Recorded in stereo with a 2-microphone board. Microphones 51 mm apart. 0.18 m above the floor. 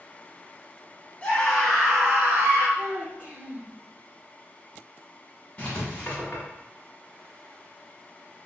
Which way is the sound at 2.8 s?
30° right (ahead or behind).